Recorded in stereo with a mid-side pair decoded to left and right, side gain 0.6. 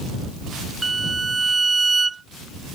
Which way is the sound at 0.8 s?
20° right.